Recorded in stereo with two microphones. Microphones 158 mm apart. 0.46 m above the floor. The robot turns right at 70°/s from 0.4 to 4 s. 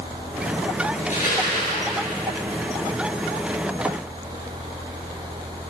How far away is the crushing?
About 9 m.